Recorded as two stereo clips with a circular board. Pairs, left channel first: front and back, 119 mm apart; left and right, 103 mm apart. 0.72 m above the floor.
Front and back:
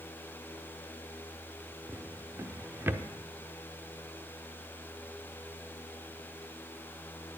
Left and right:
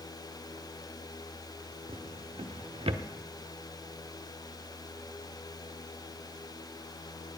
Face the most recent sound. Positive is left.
turn(degrees=-110)